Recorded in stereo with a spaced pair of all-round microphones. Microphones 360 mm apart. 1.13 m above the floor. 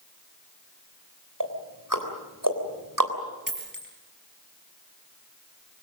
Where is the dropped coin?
60° right (ahead or behind), 4.5 m.